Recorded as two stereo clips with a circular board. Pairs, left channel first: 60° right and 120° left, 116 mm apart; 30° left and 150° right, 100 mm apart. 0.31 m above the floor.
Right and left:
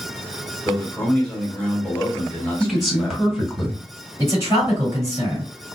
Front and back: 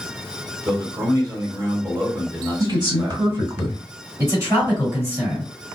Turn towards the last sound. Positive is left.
turn(degrees=165)